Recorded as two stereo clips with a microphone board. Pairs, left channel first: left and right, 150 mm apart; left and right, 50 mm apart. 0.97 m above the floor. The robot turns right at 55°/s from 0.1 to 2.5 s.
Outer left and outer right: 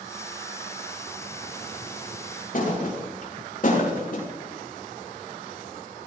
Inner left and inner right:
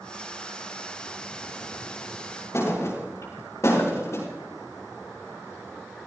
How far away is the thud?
About 6.5 m.